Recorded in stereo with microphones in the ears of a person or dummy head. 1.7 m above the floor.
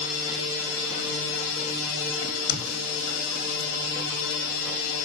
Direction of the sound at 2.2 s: 80° left.